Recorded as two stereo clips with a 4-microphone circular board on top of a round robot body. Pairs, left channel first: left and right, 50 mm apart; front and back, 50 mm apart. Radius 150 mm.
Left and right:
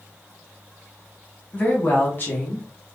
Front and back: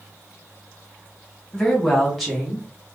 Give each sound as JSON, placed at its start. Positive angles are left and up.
{"t": 1.5, "sound": "a woman speaking", "azimuth_deg": 65, "distance_m": 1.2}